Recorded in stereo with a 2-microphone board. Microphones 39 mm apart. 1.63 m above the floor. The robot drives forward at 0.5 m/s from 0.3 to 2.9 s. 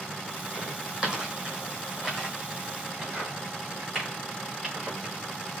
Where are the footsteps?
20° right (ahead or behind), 2.5 m; by 5.1 s 5° right (ahead or behind), 5.5 m.